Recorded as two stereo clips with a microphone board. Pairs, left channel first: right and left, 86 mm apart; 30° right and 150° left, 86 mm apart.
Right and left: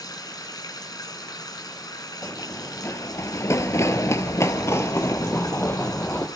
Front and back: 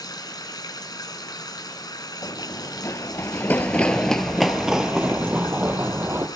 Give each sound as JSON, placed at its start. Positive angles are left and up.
{"t": 0.0, "sound": "running water", "azimuth_deg": -60, "distance_m": 2.0}
{"t": 2.2, "sound": "running footsteps", "azimuth_deg": -40, "distance_m": 1.7}